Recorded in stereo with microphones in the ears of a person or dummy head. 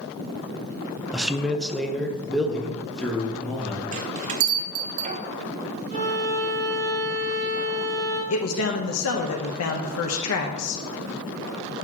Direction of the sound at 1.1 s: 10° right (ahead or behind).